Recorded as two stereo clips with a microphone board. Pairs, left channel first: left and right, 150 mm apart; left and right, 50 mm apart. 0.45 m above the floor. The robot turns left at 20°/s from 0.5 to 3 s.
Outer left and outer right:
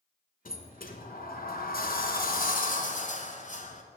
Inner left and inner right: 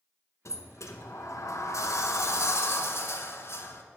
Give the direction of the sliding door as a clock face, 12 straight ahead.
8 o'clock.